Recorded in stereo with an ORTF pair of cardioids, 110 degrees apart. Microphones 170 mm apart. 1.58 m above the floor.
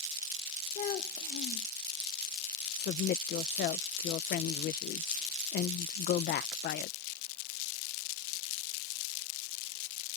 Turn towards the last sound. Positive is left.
turn(degrees=70)